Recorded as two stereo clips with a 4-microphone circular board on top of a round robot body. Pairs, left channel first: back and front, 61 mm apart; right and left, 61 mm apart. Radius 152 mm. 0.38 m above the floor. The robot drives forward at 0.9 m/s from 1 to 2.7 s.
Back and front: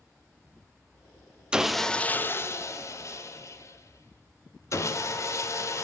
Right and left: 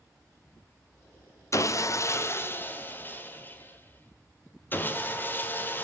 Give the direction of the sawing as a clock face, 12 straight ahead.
2 o'clock.